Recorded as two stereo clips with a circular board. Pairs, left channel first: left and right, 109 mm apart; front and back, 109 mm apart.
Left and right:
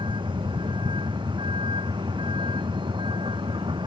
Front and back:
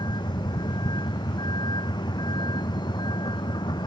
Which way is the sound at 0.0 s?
50° right.